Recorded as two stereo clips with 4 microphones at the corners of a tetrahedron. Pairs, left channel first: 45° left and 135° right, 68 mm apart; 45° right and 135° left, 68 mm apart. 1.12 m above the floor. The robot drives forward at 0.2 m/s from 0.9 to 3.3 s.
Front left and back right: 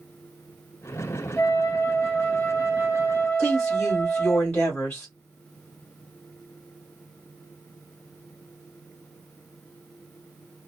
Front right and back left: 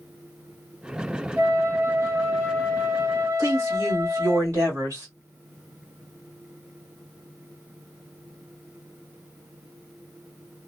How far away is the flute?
About 1.0 m.